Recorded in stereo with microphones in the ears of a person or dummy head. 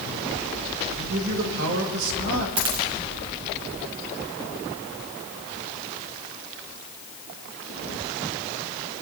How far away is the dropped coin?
About 1.5 m.